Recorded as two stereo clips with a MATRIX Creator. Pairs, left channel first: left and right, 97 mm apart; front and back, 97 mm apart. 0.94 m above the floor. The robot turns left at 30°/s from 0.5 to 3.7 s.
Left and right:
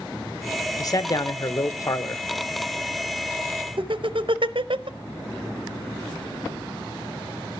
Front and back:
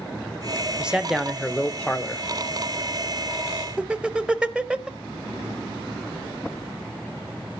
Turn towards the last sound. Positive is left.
turn(degrees=-100)